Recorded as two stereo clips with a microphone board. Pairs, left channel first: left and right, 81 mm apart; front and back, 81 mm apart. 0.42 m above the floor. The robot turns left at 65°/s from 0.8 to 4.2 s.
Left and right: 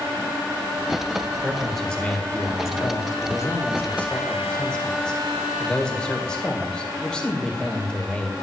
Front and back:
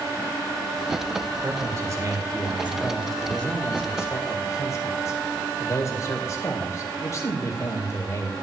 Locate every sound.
1.4 s a man speaking: 165° right, 1.7 m; by 8.3 s 15° left, 1.7 m